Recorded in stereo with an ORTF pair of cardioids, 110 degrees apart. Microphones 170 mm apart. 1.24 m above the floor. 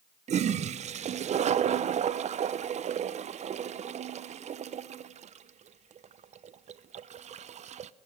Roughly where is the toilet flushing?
Ahead right.